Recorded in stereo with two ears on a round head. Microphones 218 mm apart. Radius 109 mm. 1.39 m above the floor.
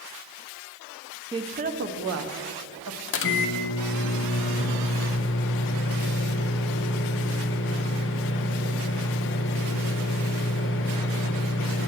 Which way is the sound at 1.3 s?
15° right (ahead or behind).